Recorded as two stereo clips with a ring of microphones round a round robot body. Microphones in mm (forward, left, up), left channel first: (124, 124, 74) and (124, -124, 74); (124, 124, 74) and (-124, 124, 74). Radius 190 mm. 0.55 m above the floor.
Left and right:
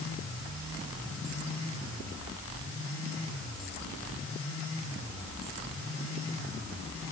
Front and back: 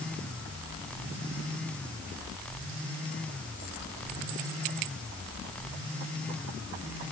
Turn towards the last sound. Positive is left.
No sound to turn to.